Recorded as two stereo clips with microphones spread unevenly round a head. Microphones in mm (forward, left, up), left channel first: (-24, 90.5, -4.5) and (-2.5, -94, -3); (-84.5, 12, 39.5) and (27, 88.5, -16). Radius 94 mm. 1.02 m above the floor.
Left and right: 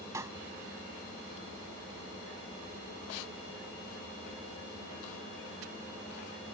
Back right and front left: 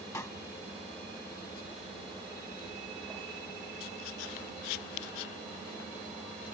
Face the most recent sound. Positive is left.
turn(degrees=-150)